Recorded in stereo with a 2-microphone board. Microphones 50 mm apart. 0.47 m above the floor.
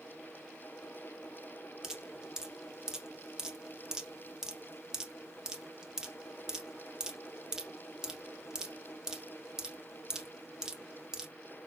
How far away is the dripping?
About 0.6 m.